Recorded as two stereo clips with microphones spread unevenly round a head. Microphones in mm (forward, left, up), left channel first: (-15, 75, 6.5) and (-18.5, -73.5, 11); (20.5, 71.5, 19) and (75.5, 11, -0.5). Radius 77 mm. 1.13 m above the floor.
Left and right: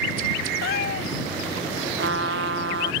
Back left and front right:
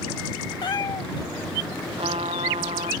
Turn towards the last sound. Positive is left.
turn(degrees=-95)